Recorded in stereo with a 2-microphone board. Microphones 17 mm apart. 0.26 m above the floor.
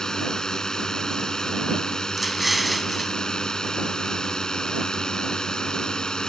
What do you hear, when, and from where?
0.0 s a drone: 40° left (ahead or behind); by 6.3 s 50° left (ahead or behind)
2.2 s an explosion: 10° right (ahead or behind)